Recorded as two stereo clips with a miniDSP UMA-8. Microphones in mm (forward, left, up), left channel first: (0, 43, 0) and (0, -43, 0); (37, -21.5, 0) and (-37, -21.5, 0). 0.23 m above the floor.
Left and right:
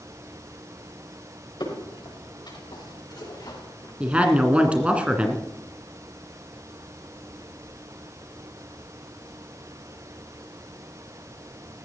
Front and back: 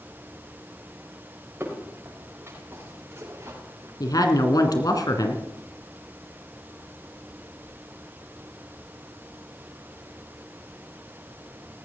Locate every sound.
1.6 s footsteps: 120° left, 6.5 m; by 3.9 s 135° left, 5.5 m
4.0 s a woman speaking: 15° right, 2 m